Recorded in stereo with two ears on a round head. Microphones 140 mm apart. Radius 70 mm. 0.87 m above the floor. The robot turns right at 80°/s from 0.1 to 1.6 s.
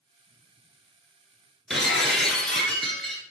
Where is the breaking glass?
Centre (ahead or behind), 1.6 m.